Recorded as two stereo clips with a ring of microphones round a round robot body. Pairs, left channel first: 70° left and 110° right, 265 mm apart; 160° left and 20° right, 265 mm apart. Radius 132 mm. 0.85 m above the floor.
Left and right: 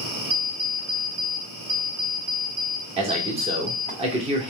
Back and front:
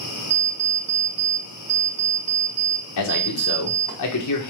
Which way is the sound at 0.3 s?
45° right.